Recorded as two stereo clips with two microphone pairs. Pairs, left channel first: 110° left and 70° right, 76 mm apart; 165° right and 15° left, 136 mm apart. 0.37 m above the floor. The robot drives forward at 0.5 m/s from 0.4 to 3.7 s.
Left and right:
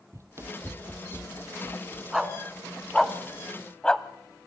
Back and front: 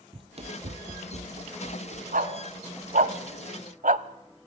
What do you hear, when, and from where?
0.1 s running footsteps: 35° right, 0.7 m; by 2.0 s 5° left, 1.2 m
2.1 s a dog barking: 10° left, 1.5 m; by 4.0 s 25° left, 0.7 m